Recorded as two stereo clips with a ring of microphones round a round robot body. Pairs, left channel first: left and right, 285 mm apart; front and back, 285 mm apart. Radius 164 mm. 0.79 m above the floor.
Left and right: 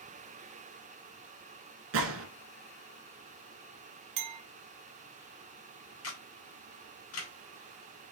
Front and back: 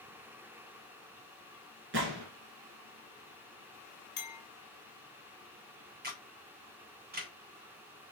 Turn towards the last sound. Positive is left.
turn(degrees=125)